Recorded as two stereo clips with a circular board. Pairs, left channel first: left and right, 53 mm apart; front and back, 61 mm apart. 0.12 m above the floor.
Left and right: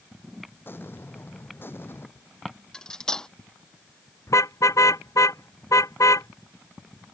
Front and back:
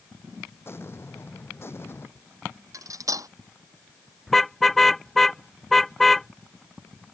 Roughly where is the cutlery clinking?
Behind.